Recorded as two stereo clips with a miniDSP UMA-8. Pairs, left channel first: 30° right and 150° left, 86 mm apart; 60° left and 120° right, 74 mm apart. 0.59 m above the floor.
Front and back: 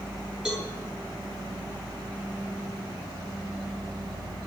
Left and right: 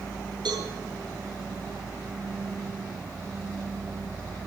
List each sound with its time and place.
0.5 s a cowbell: 125° right, 7.5 m